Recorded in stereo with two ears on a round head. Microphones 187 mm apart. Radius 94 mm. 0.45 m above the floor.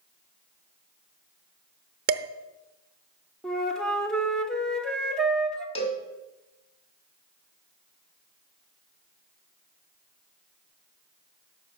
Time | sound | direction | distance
2.1 | dishes clattering | 45° right (ahead or behind) | 0.7 m
3.4 | a flute | 5° left (ahead or behind) | 1.1 m
5.8 | a cowbell | 30° left (ahead or behind) | 1.7 m